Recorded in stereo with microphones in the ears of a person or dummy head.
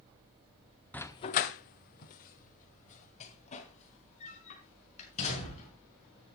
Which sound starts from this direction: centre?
A dog barking, at 0.9 s.